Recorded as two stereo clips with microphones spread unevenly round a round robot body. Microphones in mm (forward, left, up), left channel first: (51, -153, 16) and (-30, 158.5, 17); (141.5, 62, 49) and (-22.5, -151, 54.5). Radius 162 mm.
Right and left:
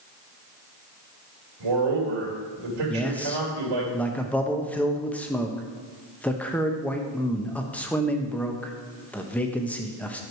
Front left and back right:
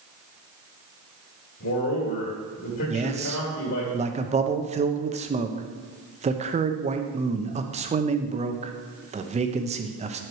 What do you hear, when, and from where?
1.6 s a man speaking: 100° left, 2.5 m
2.9 s a man speaking: 155° right, 0.7 m